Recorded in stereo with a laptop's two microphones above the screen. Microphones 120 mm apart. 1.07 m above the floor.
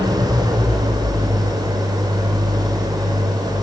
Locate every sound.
0.0 s an engine running: 35° right (ahead or behind), 3.5 m